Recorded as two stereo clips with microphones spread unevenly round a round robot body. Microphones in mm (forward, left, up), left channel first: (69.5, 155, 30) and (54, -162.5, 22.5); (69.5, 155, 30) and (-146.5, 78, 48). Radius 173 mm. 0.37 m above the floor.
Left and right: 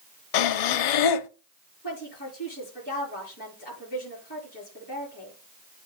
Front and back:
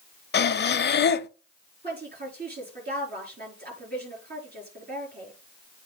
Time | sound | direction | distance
0.3 | breathing | 70° left | 0.7 m
1.8 | a woman speaking | 155° left | 6.5 m